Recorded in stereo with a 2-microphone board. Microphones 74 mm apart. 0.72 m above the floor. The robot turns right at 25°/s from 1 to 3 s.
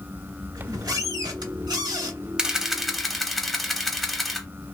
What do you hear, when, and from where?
0.6 s a squeak: 115° right, 1.0 m; by 2.3 s 85° right, 1.0 m
2.4 s a camera shutter: 10° right (ahead or behind), 0.7 m; by 4.5 s centre (ahead or behind), 0.7 m